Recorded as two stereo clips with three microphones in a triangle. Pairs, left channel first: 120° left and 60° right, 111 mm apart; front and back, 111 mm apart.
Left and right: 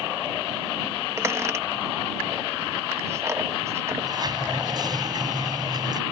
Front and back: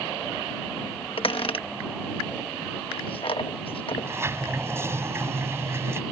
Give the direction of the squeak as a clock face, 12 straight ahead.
12 o'clock.